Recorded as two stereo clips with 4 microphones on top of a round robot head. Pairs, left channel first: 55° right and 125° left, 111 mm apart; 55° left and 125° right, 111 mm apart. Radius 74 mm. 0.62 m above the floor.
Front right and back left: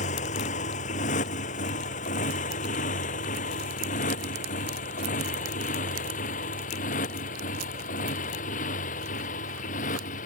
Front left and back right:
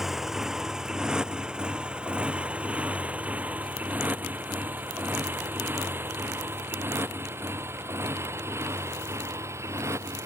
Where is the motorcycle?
35° right; by 10.3 s 55° right.